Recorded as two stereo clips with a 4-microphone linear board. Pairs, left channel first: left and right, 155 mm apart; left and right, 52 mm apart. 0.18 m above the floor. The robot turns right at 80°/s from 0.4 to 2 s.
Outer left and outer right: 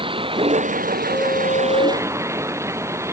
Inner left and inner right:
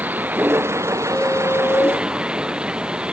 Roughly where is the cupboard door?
No cupboard door in this recording.